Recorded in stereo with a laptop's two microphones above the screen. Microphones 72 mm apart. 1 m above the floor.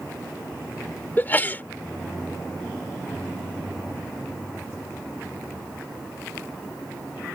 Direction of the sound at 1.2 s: 25° left (ahead or behind).